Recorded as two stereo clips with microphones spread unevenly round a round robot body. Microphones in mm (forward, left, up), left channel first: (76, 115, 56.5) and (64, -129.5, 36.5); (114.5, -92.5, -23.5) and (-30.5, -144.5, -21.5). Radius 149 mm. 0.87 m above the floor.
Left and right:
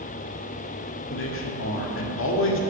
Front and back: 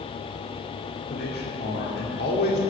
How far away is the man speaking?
About 2.5 m.